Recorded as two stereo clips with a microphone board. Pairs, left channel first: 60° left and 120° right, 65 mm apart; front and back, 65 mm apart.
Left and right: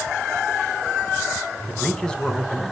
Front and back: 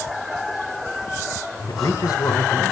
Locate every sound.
1.7 s a man speaking: 20° right, 3 m